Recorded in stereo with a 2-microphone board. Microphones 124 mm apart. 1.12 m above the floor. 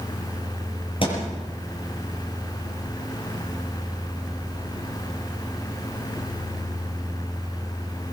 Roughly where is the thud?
Left.